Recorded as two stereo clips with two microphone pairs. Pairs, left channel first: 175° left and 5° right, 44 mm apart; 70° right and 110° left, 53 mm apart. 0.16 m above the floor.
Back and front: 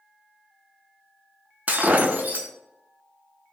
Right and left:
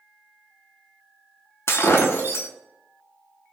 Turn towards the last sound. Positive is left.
turn(degrees=-55)